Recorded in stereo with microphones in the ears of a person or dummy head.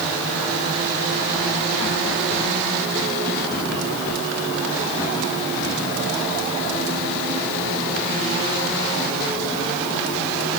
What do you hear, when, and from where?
Only background noise.